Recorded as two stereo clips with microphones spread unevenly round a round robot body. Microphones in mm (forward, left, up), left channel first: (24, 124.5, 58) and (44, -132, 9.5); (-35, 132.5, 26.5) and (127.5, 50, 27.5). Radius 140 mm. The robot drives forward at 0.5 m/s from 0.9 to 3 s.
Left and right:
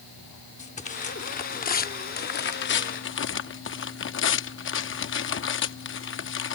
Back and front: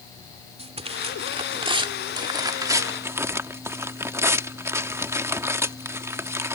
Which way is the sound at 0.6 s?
30° left.